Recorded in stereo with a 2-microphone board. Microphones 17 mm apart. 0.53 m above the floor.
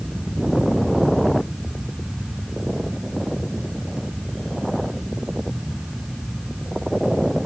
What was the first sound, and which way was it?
Only background noise.